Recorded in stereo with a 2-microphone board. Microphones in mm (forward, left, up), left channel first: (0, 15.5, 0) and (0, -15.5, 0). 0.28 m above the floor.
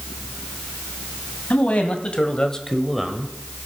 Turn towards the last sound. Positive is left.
turn(degrees=-20)  # may be behind; listen again after turning